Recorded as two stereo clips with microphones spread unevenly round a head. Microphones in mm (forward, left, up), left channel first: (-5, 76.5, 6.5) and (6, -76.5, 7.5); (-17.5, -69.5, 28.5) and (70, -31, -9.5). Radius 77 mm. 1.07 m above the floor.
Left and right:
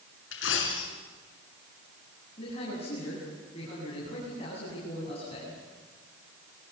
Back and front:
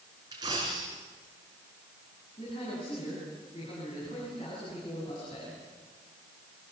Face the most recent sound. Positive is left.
turn(degrees=150)